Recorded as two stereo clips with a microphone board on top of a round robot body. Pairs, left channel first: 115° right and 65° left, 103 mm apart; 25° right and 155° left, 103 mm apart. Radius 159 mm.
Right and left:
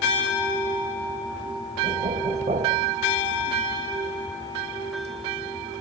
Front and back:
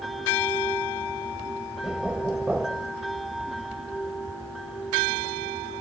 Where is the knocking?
75° left.